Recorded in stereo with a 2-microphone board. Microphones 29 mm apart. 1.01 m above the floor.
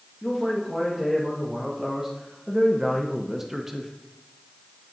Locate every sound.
0.2 s a man speaking: 5° right (ahead or behind), 1.7 m; by 3.9 s 10° right (ahead or behind), 0.8 m